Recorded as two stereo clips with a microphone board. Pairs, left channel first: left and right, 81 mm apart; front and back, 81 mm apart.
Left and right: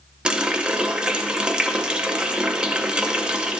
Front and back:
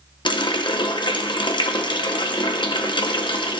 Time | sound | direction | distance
0.2 | a running tap | 10° right | 0.7 m